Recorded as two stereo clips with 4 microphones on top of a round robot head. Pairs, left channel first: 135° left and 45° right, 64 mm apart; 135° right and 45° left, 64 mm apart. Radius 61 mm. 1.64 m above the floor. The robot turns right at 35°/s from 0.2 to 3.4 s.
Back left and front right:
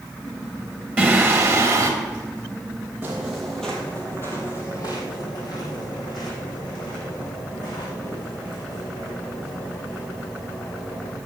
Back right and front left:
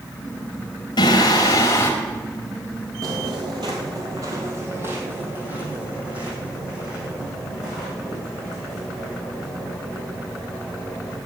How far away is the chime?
No chime in this recording.